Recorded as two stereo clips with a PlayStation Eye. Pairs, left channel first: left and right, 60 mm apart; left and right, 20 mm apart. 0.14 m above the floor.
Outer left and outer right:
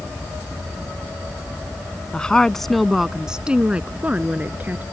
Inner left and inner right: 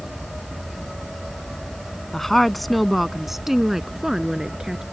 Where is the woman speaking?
15° left (ahead or behind); by 4.8 s 30° right (ahead or behind).